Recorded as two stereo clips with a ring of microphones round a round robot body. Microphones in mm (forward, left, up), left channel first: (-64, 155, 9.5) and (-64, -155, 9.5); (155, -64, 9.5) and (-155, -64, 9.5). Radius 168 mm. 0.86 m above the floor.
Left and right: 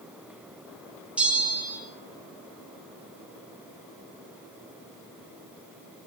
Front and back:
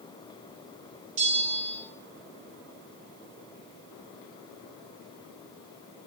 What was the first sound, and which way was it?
A bell, 175° right.